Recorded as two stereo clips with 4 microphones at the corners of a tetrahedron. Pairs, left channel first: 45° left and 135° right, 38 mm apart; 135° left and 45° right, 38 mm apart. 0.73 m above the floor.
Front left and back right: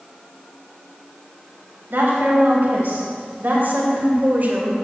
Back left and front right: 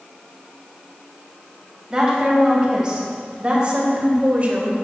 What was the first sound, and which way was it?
A woman speaking, 120° right.